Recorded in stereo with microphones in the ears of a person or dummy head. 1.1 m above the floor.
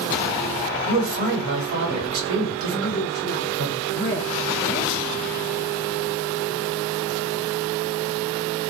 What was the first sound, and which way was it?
A man speaking, 80° right.